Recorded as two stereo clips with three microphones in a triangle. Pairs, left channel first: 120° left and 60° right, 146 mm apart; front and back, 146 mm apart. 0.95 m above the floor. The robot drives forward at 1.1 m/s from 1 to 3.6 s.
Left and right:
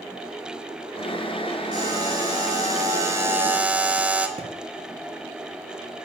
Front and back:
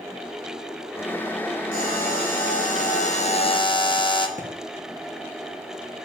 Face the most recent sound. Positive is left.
turn(degrees=-15)